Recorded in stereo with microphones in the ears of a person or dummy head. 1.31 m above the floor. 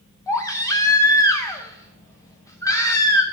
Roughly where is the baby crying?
Centre.